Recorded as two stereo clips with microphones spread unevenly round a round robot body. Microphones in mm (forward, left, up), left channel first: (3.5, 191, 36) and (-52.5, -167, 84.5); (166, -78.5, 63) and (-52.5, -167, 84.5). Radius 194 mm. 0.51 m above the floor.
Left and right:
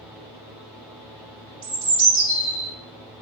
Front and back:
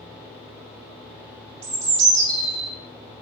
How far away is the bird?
About 0.7 m.